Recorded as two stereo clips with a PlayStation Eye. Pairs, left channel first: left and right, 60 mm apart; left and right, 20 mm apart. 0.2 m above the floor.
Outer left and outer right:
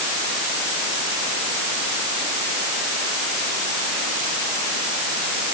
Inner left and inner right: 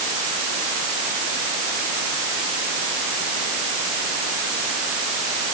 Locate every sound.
Only background noise.